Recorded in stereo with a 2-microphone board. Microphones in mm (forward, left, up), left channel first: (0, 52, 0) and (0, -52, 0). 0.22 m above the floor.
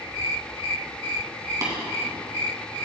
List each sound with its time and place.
1.6 s tapping: 35° right (ahead or behind), 2.5 m